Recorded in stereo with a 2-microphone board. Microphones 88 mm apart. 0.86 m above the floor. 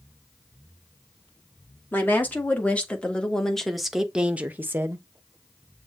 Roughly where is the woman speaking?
Left.